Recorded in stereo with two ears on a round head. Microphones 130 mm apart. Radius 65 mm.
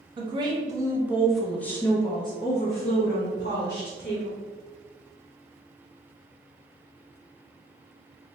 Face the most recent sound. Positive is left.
turn(degrees=65)  # may be behind; listen again after turning